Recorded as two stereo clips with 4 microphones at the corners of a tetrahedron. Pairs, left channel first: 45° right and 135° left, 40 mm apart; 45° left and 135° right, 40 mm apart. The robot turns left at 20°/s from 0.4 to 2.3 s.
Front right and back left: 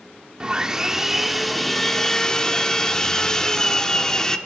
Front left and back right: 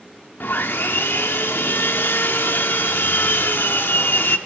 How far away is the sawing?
About 0.9 m.